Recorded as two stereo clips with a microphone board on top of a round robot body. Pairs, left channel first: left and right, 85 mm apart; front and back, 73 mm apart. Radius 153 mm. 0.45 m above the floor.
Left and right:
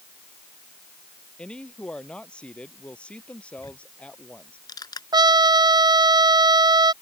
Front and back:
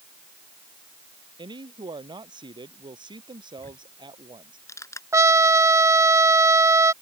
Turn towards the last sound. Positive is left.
turn(degrees=-130)